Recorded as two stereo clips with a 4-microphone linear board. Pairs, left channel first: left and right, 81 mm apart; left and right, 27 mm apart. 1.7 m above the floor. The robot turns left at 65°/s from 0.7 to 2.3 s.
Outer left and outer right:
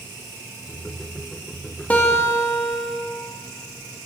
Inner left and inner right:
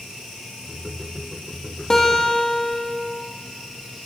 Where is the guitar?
15° left (ahead or behind), 1.9 m; by 2.9 s 40° left (ahead or behind), 1.9 m.